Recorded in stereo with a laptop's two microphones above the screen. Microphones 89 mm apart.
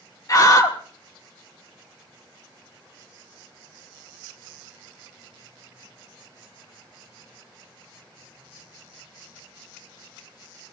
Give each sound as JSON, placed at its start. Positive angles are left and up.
{"t": 0.3, "sound": "a scream", "side_deg": 40, "distance_m": 2.0}